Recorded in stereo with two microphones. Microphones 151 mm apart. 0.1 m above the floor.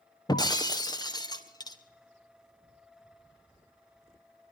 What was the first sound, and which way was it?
Breaking glass, 25° left (ahead or behind).